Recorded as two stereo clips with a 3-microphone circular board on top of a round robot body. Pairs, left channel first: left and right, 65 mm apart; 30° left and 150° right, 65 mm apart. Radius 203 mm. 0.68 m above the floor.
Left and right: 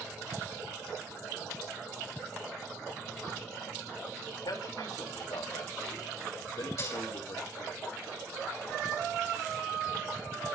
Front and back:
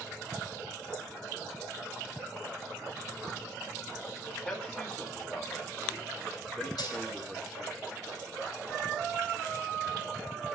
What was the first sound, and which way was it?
A man speaking, 105° left.